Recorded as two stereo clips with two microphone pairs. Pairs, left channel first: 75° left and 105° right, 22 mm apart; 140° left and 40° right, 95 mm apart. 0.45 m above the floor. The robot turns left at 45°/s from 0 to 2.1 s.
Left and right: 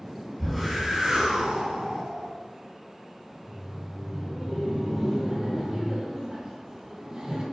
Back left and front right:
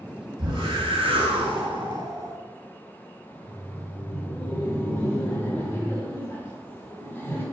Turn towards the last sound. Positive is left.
turn(degrees=-155)